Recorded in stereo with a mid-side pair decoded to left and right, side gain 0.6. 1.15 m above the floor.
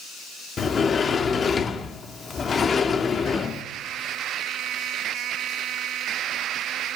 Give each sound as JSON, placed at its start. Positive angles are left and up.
{"t": 0.6, "sound": "a sliding door", "azimuth_deg": 35, "distance_m": 1.3}